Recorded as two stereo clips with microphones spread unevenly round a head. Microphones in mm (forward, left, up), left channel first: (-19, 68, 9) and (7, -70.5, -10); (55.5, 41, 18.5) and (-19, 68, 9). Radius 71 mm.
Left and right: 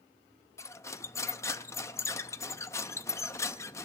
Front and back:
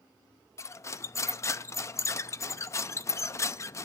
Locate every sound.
0.6 s cutlery clinking: 30° left, 0.6 m